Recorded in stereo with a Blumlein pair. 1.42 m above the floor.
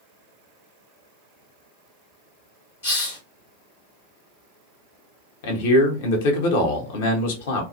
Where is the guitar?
No guitar in this recording.